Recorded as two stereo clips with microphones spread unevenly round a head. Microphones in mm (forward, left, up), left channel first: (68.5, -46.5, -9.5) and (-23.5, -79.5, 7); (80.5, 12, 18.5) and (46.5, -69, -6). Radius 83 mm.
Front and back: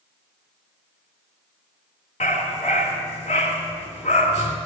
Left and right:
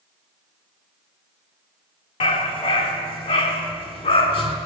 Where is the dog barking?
80° left, 3 m.